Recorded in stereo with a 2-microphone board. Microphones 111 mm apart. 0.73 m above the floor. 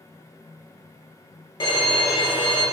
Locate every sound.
1.6 s a violin: 45° left (ahead or behind), 1.1 m